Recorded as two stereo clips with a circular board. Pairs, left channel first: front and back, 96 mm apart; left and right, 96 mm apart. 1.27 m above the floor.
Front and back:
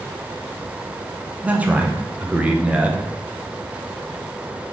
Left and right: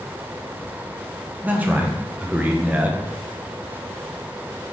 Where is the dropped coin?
I don't hear a dropped coin.